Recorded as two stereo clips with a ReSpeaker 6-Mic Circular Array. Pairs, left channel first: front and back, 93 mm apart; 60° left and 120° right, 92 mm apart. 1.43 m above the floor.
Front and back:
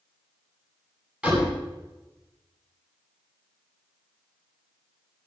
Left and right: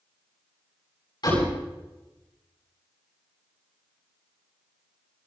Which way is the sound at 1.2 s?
105° left.